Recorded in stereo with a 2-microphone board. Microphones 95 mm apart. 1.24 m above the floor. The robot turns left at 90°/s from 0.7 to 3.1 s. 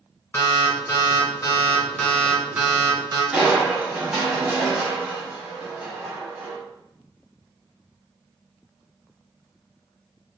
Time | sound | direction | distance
0.3 | an alarm | 140° left | 1.4 m
3.3 | crushing | 10° right (ahead or behind) | 1.1 m